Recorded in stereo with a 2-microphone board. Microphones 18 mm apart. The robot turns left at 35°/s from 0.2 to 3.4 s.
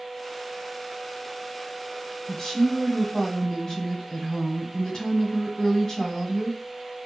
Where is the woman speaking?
110° left, 1.9 m; by 6.6 s 70° left, 1.9 m.